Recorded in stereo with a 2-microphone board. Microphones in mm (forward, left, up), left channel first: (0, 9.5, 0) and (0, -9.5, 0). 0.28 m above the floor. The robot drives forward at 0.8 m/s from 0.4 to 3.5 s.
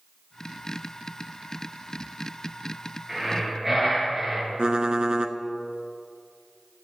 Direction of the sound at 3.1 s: 10° right (ahead or behind).